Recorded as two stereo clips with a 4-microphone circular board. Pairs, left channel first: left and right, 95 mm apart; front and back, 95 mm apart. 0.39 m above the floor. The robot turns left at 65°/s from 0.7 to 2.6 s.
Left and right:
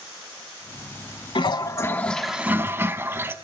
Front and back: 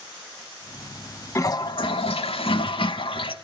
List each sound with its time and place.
1.4 s a toilet flushing: 60° left, 0.7 m; by 3.4 s 25° right, 0.7 m